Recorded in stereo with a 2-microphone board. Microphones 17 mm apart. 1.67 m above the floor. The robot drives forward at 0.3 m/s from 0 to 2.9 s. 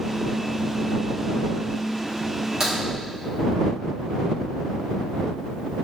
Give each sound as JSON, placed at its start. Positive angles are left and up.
{"t": 2.6, "sound": "a crack", "side_deg": -35, "distance_m": 1.3}